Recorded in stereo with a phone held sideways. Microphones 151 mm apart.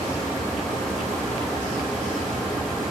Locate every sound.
0.0 s a fan: centre (ahead or behind), 1.3 m